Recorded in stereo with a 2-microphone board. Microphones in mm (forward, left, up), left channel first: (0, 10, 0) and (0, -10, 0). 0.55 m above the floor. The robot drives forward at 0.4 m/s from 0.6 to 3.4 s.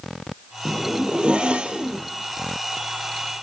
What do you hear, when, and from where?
0.7 s a zipper: 50° right (ahead or behind), 2.5 m; by 2.0 s 60° right (ahead or behind), 2 m